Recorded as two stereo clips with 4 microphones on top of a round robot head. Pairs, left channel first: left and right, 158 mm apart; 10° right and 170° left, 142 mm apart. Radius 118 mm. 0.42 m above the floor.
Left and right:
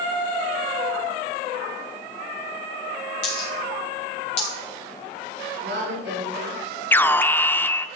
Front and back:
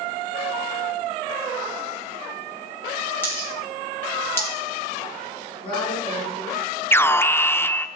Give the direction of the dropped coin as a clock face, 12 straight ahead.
10 o'clock.